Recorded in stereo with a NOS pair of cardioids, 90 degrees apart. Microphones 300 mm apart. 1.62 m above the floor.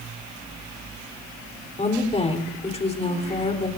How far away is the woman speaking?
About 4 m.